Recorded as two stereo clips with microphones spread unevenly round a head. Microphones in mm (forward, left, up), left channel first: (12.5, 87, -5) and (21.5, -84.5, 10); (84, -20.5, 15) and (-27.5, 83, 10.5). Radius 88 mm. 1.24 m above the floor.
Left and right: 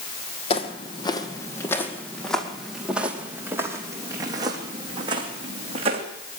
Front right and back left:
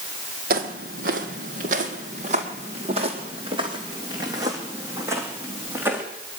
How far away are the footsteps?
About 1.9 m.